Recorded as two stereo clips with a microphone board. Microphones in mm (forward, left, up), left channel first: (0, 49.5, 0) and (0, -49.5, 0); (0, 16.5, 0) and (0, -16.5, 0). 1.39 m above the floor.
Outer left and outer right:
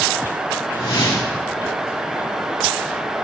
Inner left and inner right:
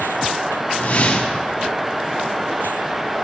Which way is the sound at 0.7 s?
65° left (ahead or behind).